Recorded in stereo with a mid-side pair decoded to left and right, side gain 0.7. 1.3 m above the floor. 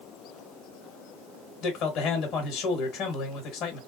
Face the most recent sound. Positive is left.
turn(degrees=55)